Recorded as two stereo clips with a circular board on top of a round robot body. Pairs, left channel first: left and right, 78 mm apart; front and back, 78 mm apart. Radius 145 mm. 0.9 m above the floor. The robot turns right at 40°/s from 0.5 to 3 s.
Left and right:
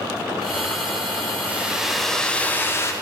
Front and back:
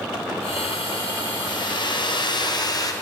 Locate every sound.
1.5 s a hair dryer: 20° right, 1.0 m; by 2.9 s 40° left, 1.0 m